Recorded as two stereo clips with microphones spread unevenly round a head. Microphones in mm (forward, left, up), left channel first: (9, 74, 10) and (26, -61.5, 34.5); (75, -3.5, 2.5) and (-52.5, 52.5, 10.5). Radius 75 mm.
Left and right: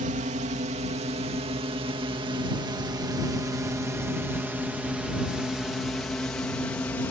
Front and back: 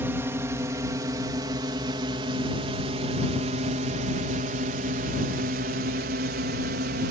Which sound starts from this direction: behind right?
A drone, at 0.0 s.